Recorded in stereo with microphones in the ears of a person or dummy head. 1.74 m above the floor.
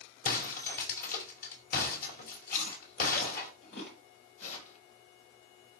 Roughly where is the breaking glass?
Left.